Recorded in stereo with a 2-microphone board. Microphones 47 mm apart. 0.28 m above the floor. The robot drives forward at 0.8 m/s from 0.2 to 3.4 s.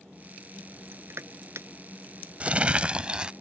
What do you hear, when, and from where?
0.9 s crushing: 60° right (ahead or behind); by 1.7 s 80° right
2.4 s crumpling: 30° right (ahead or behind); by 3.3 s 20° right (ahead or behind)